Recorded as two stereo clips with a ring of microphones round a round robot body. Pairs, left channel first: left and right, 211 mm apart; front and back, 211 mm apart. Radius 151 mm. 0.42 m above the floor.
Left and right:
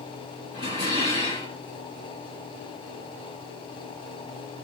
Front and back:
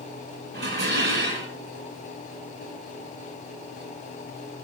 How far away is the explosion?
No explosion in this recording.